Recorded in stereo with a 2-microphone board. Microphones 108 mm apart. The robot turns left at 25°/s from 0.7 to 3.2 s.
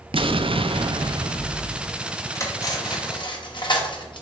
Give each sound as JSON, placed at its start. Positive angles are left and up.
{"t": 0.1, "sound": "an explosion", "azimuth_deg": -120, "distance_m": 0.5}
{"t": 2.4, "sound": "cutlery clinking", "side_deg": 30, "distance_m": 1.1}